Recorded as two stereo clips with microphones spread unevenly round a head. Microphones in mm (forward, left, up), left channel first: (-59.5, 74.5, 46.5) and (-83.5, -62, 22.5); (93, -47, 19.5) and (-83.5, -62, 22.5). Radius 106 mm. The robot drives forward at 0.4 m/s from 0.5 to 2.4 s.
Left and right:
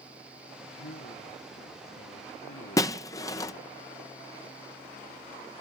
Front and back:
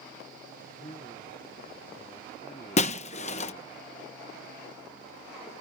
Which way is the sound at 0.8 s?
70° left.